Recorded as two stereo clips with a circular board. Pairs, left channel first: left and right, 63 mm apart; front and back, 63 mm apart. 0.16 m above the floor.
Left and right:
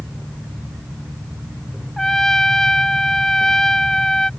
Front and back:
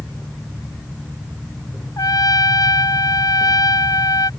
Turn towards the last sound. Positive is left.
turn(degrees=10)